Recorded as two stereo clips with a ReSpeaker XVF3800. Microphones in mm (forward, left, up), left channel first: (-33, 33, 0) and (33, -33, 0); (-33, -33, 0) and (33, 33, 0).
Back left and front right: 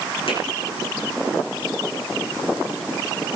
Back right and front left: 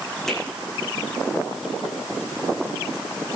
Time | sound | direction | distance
0.3 | a finger snap | 140° left | 8 m